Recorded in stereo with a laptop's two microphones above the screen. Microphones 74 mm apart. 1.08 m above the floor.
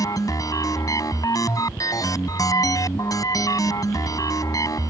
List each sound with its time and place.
0.0 s a machine running: 55° left (ahead or behind)